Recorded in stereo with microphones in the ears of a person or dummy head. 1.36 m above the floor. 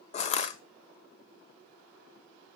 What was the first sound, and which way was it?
Crushing, 40° left (ahead or behind).